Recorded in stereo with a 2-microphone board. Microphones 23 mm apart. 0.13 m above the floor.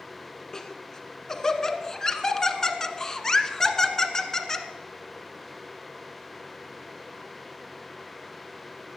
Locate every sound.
0.5 s laughter: 20° left (ahead or behind), 1.2 m